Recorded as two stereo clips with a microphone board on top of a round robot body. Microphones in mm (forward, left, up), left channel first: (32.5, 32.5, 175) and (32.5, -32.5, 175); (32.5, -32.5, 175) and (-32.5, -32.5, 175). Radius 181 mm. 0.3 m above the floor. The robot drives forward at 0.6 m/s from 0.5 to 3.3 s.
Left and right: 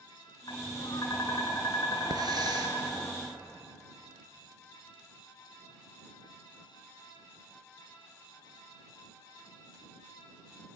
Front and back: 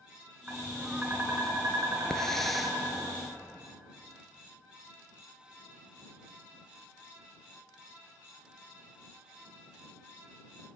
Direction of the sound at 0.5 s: 105° left.